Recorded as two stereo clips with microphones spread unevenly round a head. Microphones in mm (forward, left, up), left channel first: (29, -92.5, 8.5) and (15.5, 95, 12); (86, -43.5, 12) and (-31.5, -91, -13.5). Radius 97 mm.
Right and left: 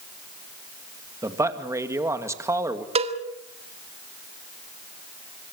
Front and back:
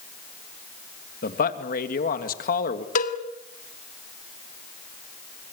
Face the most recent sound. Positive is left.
turn(degrees=35)